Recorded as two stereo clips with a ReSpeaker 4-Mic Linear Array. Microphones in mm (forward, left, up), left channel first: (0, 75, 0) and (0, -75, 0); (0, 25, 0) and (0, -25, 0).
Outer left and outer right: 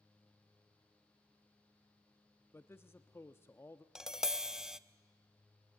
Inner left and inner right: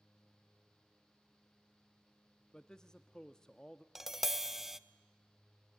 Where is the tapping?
5° right (ahead or behind), 0.6 m.